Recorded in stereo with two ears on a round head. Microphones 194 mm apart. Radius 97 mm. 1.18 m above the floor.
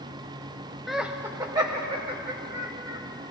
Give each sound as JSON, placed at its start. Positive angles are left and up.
{"t": 0.9, "sound": "laughter", "side_deg": 0, "distance_m": 0.6}